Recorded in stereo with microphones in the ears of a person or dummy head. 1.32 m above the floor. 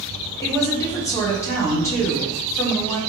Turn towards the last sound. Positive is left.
turn(degrees=20)  # may be behind; listen again after turning